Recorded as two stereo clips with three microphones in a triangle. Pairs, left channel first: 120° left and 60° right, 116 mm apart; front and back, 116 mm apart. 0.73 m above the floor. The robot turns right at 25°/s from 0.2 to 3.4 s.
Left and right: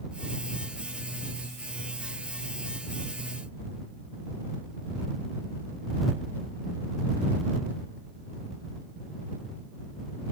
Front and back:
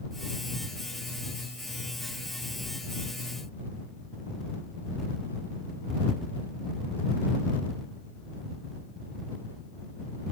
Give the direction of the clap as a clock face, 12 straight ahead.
I don't hear a clap.